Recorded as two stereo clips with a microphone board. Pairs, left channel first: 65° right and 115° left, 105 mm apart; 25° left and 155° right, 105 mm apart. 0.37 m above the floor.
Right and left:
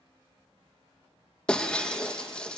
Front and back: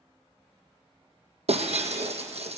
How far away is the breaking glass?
About 2 m.